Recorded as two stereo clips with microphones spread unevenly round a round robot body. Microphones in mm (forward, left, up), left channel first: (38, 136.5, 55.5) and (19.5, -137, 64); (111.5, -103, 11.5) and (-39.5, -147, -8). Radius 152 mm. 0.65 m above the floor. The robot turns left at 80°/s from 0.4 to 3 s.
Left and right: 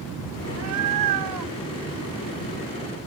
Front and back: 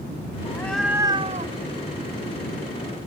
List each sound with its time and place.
0.5 s a cat meowing: 45° right; by 3.0 s 110° left